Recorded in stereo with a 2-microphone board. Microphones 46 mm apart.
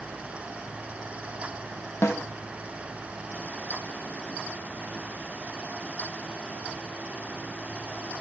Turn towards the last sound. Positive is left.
turn(degrees=70)  # may be behind; listen again after turning